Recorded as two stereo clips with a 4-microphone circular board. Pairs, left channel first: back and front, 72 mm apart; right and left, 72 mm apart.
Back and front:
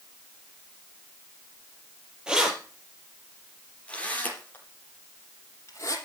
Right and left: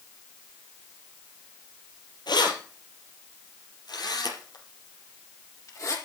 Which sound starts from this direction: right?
Keys jangling, at 2.3 s.